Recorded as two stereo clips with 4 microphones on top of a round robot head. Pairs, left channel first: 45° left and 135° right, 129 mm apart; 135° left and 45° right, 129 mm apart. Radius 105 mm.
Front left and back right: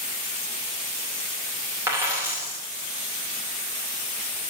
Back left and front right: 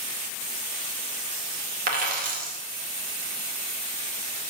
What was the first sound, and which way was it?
A dropped coin, 60° right.